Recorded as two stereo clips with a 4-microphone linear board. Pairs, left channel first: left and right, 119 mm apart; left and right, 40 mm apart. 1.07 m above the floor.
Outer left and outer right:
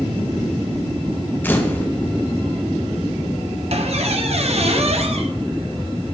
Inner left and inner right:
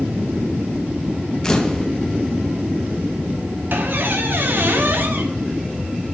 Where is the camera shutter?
15° left (ahead or behind), 0.8 m.